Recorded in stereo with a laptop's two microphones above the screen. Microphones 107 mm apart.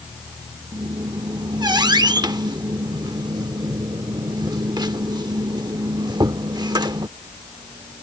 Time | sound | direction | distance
0.7 | a squeak | 45° right (ahead or behind) | ?